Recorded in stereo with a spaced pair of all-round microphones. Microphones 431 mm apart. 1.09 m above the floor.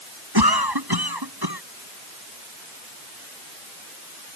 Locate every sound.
0.3 s a cough: 60° right (ahead or behind)